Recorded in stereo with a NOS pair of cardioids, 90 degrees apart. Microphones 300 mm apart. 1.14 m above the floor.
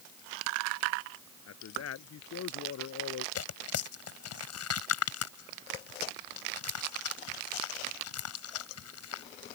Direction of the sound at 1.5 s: 60° left.